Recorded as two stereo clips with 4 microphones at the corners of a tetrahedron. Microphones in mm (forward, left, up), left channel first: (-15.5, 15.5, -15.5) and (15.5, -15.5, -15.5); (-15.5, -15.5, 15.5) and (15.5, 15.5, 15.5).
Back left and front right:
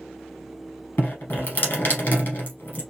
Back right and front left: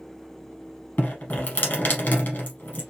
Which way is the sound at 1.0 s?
Straight behind.